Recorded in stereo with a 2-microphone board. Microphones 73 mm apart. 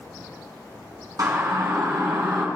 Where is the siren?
55° right (ahead or behind), 3.5 m; by 2.5 s 65° right (ahead or behind), 3 m.